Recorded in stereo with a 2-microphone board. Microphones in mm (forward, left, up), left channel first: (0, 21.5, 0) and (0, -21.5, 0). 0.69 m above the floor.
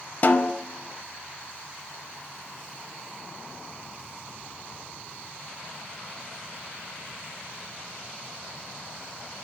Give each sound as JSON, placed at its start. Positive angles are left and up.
{"t": 0.2, "sound": "a snare drum", "side_deg": 45, "distance_m": 0.6}